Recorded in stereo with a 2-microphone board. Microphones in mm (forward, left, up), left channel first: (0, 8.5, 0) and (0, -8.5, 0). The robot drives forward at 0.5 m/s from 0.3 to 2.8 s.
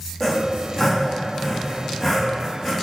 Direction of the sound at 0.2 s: 10° left (ahead or behind).